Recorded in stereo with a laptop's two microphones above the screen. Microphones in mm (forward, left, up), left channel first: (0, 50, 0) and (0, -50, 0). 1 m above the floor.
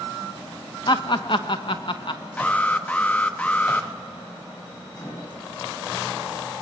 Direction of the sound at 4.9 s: 25° left (ahead or behind).